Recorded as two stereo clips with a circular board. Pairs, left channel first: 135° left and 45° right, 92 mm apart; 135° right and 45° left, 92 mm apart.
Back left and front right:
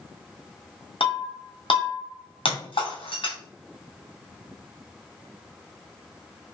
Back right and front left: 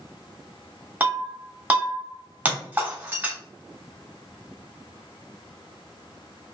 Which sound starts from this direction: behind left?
Breaking glass, at 1.0 s.